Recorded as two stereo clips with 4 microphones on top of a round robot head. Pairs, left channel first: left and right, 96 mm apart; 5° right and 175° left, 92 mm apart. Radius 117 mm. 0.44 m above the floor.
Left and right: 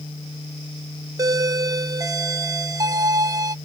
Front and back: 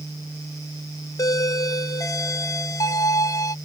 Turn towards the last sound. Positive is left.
turn(degrees=-50)